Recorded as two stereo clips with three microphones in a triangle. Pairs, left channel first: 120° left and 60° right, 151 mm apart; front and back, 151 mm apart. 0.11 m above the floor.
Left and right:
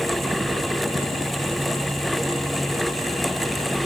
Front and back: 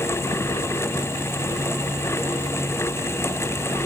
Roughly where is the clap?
No clap in this recording.